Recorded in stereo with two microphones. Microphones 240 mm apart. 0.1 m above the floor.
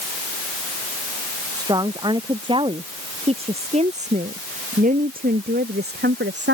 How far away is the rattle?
I don't hear a rattle.